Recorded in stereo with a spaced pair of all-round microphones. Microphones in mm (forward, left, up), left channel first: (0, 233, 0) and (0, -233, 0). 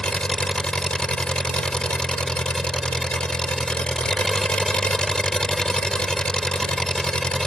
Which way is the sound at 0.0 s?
Centre (ahead or behind).